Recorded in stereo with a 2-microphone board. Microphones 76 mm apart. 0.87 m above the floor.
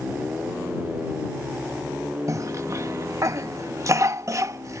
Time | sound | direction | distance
2.3 | a cough | 45° right (ahead or behind) | ?